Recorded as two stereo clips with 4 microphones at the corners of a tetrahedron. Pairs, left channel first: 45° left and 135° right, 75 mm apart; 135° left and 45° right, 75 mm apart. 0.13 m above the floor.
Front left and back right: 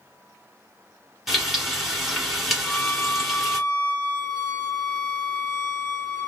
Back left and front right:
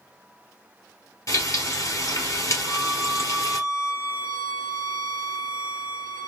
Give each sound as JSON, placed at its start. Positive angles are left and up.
{"t": 1.3, "sound": "frying", "azimuth_deg": 135, "distance_m": 1.4}
{"t": 2.6, "sound": "a violin", "azimuth_deg": 0, "distance_m": 1.3}